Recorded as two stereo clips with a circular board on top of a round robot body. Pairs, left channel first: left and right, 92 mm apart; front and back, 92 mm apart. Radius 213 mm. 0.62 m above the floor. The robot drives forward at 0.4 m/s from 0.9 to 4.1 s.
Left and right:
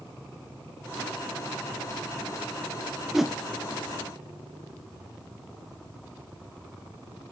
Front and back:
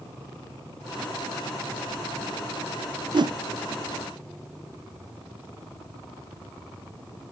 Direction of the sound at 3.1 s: 175° right.